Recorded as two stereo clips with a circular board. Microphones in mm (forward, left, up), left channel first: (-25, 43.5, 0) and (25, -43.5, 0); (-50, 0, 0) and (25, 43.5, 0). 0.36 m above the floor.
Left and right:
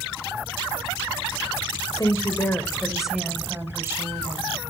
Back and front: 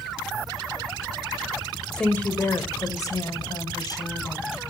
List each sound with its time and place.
1.9 s a woman speaking: 130° left, 1.4 m; by 4.5 s 115° right, 2.5 m